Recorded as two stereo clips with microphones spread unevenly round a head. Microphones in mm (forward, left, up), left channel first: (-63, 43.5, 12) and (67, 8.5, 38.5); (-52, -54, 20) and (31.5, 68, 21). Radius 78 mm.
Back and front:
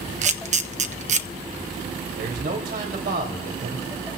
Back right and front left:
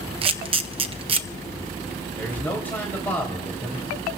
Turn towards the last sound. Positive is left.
turn(degrees=-45)